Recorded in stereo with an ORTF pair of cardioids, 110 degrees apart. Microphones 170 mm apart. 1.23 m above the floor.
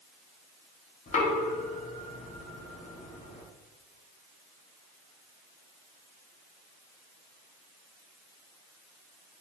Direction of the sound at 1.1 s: 45° left.